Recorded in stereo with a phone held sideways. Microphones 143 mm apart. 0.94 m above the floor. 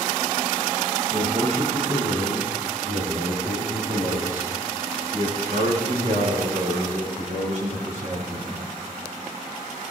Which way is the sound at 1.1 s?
60° right (ahead or behind).